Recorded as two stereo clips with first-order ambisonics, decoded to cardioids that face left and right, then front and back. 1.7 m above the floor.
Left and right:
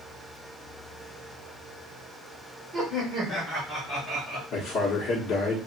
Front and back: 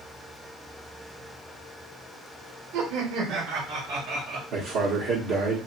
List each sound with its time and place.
2.7 s laughter: 170° right, 1.4 m; by 4.4 s straight behind, 2 m
4.5 s a man speaking: 140° left, 0.9 m